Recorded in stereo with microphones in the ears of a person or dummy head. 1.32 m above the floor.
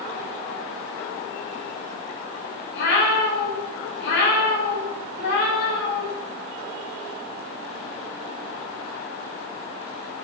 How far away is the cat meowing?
About 0.8 m.